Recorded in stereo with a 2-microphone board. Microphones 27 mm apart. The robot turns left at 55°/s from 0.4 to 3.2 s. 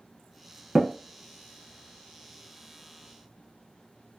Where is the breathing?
I don't hear breathing.